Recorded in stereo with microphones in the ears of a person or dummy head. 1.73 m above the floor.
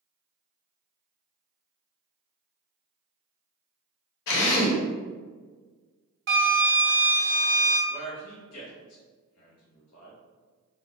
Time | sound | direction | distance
4.3 | a drill | 70° left (ahead or behind) | 1.1 m
6.3 | a flute | 70° right (ahead or behind) | 1.1 m
7.9 | a man speaking | 75° left (ahead or behind) | 1.1 m